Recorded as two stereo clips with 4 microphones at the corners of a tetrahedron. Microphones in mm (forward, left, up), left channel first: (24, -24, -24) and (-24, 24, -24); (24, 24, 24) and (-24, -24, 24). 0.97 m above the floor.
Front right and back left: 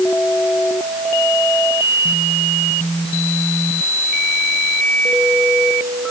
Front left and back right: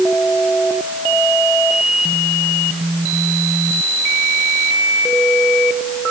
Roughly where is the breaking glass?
No breaking glass in this recording.